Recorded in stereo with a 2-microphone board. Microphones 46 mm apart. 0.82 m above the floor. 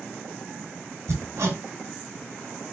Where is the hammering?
75° right (ahead or behind), 1.8 m.